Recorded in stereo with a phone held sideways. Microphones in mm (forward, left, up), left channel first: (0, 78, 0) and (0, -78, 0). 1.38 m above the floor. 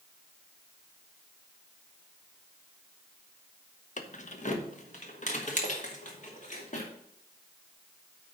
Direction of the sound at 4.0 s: 50° left (ahead or behind).